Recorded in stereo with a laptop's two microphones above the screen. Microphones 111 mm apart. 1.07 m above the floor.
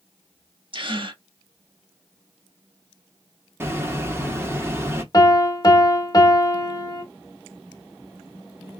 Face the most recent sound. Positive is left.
turn(degrees=35)  # may be behind; listen again after turning